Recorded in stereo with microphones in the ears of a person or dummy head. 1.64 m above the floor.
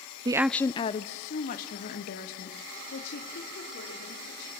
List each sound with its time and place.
0.2 s a woman speaking: 30° right (ahead or behind), 0.6 m; by 4.5 s 60° left (ahead or behind), 5.5 m